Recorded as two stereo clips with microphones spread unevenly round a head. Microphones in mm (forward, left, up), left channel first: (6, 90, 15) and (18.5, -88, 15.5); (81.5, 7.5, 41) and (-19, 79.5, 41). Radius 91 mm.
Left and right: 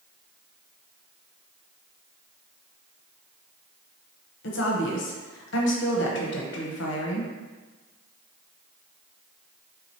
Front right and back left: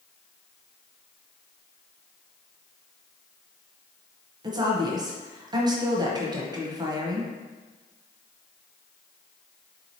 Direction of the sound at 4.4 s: 90° left.